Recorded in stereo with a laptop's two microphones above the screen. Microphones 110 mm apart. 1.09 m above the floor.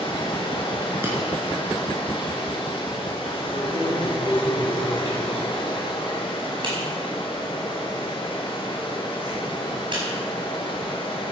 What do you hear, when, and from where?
0.0 s running water: 50° left (ahead or behind), 4 m
1.0 s breaking glass: 20° right (ahead or behind), 5 m
3.5 s keys jangling: 50° right (ahead or behind), 5 m